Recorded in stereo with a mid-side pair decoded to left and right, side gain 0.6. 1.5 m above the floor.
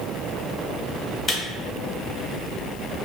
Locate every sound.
1.3 s a camera shutter: 35° left, 1.2 m